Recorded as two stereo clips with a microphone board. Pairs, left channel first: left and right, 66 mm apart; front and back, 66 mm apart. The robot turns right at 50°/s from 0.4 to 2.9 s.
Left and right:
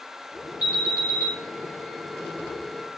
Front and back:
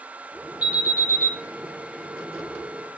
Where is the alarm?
105° left, 6.5 m; by 1.3 s 140° left, 6.5 m.